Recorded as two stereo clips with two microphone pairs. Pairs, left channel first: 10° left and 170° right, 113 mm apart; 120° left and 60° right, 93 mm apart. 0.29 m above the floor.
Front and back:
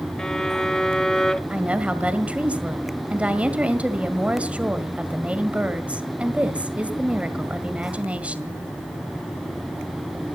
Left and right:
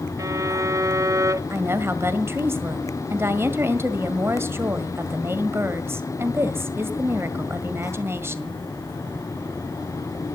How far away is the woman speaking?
About 1.6 m.